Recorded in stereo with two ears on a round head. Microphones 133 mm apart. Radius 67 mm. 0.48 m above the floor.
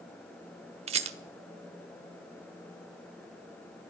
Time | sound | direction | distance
0.9 | a rattle | 45° right (ahead or behind) | 1.1 m